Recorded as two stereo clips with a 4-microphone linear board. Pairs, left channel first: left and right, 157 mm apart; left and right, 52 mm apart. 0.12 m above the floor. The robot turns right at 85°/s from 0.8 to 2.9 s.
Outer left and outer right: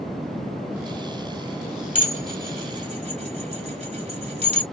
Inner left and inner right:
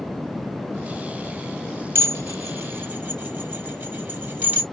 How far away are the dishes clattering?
About 2.0 m.